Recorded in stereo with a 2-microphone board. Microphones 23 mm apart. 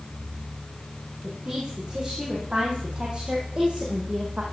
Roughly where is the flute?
No flute in this recording.